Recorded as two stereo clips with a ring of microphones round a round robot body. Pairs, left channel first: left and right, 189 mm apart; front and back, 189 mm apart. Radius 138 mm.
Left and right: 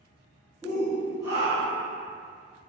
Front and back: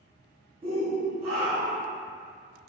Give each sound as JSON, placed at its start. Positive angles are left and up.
{"t": 0.6, "sound": "a shout", "azimuth_deg": -150, "distance_m": 0.6}